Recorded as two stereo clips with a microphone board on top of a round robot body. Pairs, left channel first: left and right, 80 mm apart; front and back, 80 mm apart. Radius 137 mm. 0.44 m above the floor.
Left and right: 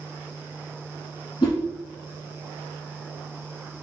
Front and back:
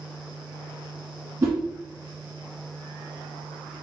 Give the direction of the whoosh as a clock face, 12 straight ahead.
8 o'clock.